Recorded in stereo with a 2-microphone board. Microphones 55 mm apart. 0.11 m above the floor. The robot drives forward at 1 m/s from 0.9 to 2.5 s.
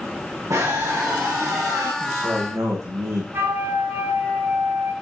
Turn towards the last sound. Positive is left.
turn(degrees=-50)  # may be behind; listen again after turning